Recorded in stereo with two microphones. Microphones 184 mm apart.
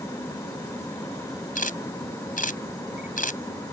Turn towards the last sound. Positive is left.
turn(degrees=50)  # may be behind; listen again after turning